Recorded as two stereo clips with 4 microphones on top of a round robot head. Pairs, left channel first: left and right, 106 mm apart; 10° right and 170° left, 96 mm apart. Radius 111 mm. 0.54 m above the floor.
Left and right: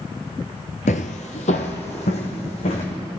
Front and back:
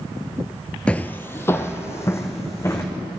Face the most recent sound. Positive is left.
turn(degrees=55)